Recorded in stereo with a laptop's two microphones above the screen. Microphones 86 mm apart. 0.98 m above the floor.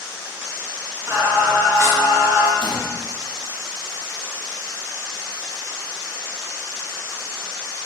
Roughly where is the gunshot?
Left.